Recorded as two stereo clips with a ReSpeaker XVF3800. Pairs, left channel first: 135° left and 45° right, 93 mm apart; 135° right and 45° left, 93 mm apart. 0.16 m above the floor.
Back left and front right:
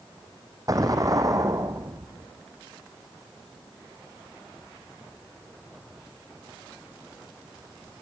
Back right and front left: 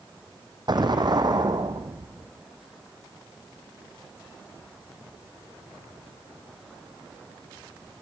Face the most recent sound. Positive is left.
turn(degrees=5)